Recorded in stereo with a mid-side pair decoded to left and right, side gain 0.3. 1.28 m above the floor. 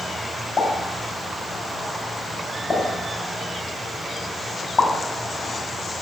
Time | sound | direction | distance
0.6 | a pop | 60° left | 2 m